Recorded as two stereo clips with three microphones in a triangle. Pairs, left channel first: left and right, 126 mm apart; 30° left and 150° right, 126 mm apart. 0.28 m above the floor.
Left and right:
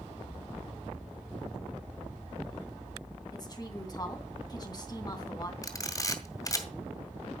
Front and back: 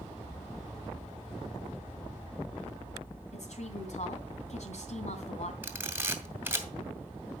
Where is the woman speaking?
35° left, 3 m.